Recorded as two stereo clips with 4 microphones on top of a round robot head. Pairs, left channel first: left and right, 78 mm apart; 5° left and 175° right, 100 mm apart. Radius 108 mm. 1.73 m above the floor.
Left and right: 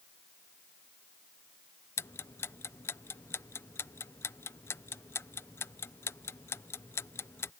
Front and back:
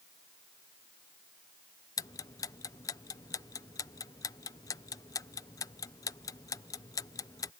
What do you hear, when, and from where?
2.0 s ticking: 45° left